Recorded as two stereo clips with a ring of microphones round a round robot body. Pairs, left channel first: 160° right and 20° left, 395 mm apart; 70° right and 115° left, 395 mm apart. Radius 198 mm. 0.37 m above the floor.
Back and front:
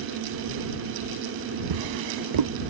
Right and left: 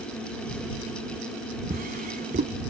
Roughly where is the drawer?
Ahead left.